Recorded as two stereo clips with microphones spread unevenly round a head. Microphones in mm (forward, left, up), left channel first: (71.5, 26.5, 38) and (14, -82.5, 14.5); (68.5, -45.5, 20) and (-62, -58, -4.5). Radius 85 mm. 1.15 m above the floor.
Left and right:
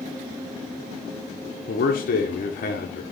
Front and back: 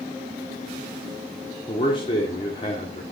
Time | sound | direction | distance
1.7 | a man speaking | 70° left | 0.6 m